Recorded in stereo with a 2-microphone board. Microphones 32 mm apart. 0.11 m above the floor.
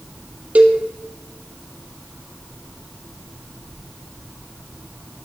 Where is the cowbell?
50° right (ahead or behind), 1.7 m.